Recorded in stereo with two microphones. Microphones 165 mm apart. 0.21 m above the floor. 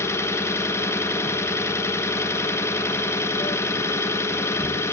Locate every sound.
0.0 s an engine running: 15° left (ahead or behind), 0.8 m